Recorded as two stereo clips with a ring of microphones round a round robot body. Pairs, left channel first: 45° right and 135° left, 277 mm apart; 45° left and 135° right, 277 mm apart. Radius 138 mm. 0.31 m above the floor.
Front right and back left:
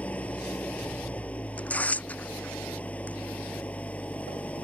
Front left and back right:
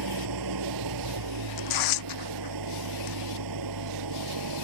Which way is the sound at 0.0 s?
130° right.